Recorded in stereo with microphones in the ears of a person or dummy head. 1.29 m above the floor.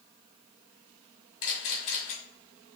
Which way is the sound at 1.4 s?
60° left (ahead or behind).